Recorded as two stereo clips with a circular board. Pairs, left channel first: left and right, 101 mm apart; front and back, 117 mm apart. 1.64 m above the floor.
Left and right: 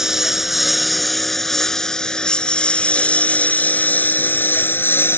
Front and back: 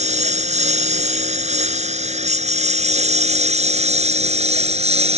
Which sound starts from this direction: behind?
A lawn mower, at 0.0 s.